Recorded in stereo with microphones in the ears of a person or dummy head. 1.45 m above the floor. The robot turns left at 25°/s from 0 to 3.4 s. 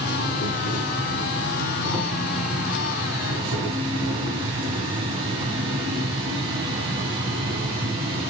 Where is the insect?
60° left, 4.5 m; by 8.3 s 25° right, 4.5 m.